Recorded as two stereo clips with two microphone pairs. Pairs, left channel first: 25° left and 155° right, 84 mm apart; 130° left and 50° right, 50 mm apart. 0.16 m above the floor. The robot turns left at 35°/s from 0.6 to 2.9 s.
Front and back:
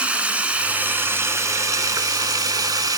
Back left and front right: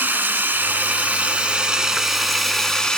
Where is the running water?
85° right, 0.7 m; by 3.0 s 165° right, 0.7 m.